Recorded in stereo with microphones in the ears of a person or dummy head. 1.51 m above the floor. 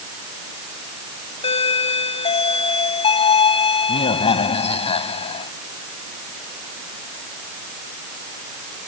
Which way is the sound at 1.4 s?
35° left (ahead or behind).